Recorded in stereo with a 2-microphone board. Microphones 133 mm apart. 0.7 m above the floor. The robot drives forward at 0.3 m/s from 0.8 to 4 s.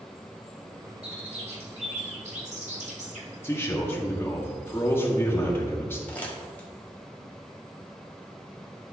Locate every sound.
1.0 s a bird: 50° right (ahead or behind), 1.9 m; by 3.3 s 65° right (ahead or behind), 1.6 m
3.4 s a man speaking: 20° left (ahead or behind), 1.3 m; by 6.0 s 15° left (ahead or behind), 1.4 m
6.1 s crumpling: 10° left (ahead or behind), 1.4 m